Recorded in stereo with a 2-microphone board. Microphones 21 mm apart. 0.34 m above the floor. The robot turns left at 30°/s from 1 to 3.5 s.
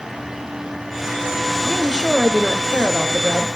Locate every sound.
1.6 s a woman speaking: 60° left, 1.6 m; by 3.5 s 5° left, 1.6 m